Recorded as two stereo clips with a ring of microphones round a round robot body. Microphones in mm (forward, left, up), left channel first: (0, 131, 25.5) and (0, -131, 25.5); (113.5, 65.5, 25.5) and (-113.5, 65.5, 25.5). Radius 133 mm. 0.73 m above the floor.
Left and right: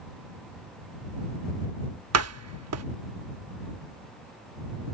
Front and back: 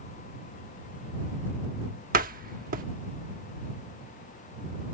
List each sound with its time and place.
2.1 s a door slam: 120° right